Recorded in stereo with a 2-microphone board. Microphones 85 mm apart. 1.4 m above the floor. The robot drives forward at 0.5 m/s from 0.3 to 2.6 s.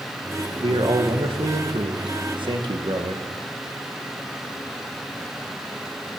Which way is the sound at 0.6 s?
70° right (ahead or behind).